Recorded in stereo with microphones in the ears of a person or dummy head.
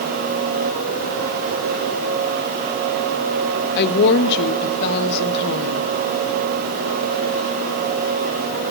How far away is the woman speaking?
About 1.1 m.